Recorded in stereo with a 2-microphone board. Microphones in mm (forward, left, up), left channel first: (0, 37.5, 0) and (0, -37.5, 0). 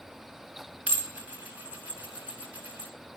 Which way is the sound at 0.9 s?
20° right (ahead or behind).